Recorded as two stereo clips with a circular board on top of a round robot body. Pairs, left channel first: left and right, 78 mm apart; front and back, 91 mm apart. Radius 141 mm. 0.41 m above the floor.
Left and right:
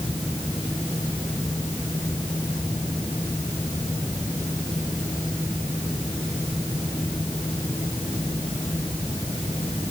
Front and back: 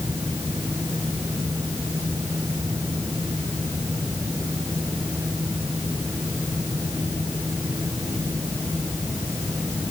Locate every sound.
Only background noise.